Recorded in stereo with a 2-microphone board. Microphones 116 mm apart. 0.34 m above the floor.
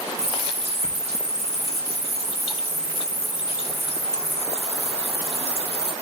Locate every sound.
0.2 s a running tap: 75° right (ahead or behind), 3.5 m